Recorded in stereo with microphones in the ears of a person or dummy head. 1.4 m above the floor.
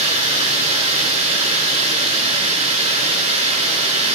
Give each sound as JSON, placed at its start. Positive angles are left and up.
{"t": 0.0, "sound": "running water", "side_deg": -35, "distance_m": 6.0}